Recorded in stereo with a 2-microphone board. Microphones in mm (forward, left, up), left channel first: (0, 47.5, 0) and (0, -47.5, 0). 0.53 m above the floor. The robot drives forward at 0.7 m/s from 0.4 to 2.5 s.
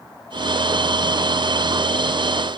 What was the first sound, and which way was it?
Only background noise.